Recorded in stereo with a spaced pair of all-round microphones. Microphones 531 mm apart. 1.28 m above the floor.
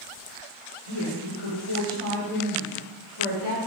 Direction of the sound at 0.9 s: 85° left.